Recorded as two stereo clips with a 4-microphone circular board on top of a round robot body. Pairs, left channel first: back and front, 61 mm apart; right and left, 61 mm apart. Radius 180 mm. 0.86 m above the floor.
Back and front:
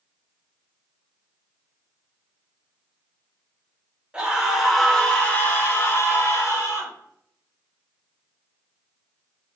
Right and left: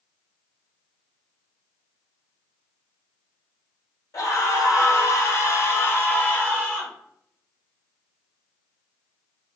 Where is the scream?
70° right, 1.2 m; by 6.9 s 155° right, 1.4 m.